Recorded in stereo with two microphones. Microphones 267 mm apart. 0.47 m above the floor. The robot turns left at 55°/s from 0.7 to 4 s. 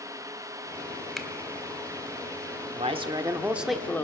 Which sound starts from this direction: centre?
A finger snap, at 1.2 s.